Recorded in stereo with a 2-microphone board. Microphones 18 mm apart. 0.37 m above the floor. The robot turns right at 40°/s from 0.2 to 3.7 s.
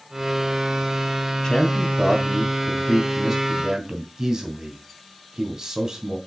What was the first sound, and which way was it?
A man speaking, 40° left (ahead or behind).